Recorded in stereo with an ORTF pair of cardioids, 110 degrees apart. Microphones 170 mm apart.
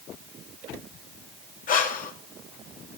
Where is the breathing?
50° left, 2.5 m.